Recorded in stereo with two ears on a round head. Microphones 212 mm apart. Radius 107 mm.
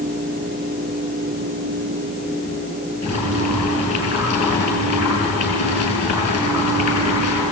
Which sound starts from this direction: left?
Boiling, at 3.0 s.